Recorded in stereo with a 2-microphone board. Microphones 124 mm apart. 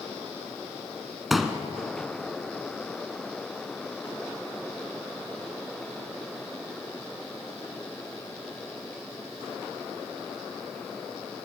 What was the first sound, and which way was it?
A pop, centre (ahead or behind).